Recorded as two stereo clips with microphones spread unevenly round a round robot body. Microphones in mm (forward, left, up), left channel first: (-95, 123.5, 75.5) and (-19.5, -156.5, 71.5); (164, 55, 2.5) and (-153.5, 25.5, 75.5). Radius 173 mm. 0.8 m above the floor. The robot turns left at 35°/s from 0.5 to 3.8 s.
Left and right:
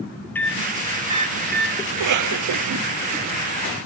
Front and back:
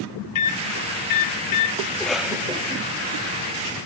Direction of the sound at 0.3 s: 20° left.